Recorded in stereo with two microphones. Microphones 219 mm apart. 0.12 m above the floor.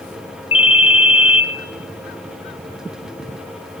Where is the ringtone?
25° left (ahead or behind), 1.5 m.